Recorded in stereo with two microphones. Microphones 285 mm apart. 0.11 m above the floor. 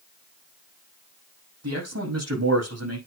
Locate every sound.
1.6 s a man speaking: 60° right (ahead or behind), 5.5 m